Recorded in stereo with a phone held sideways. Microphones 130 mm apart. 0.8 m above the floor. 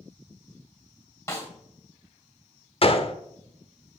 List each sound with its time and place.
1.3 s a snare drum: 25° left (ahead or behind), 2 m
2.8 s a gunshot: 45° left (ahead or behind), 0.7 m